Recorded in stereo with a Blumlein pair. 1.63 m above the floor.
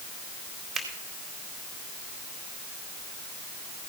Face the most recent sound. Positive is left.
turn(degrees=-5)